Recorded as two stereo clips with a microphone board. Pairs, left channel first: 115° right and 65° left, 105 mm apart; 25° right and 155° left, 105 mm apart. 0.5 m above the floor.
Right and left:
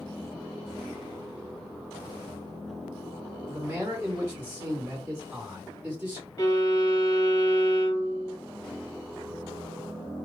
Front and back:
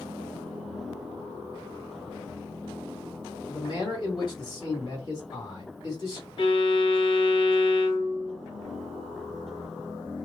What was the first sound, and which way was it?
A man speaking, straight ahead.